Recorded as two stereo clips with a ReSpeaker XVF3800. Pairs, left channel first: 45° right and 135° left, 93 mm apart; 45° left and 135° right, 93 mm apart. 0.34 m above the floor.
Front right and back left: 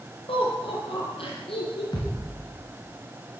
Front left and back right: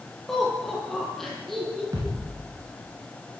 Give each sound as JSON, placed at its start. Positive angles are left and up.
{"t": 0.3, "sound": "laughter", "azimuth_deg": -40, "distance_m": 9.5}
{"t": 1.9, "sound": "a thud", "azimuth_deg": -85, "distance_m": 8.0}